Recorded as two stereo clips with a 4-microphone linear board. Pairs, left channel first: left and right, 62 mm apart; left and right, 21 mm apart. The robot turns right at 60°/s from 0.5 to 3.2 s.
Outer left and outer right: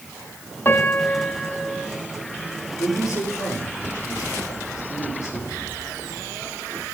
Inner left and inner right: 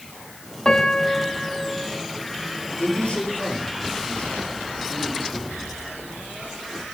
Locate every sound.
0.7 s a piano: 125° left, 0.9 m; by 1.9 s 160° right, 0.9 m
2.8 s a man speaking: 55° left (ahead or behind), 5.5 m; by 5.6 s 75° left (ahead or behind), 5.5 m